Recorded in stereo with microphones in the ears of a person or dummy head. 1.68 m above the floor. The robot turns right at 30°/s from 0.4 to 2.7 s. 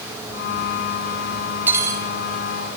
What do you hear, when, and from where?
1.7 s cutlery clinking: 10° right (ahead or behind), 2.5 m; by 2.1 s 25° right (ahead or behind), 2.5 m